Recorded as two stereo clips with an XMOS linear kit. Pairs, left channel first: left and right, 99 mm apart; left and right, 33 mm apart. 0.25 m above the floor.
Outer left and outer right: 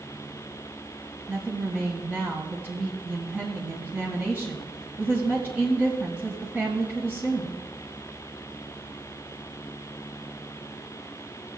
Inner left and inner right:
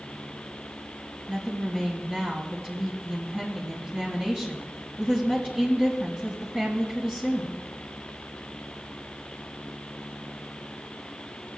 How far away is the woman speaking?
About 2 m.